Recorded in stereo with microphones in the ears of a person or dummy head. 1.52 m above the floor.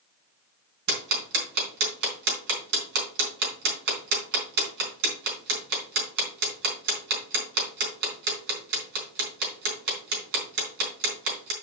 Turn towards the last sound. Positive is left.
turn(degrees=-65)  # may be behind; listen again after turning